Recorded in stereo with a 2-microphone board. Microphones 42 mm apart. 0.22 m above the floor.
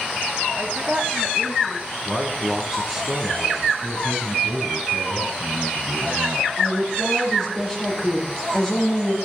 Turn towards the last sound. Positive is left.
turn(degrees=10)  # may be behind; listen again after turning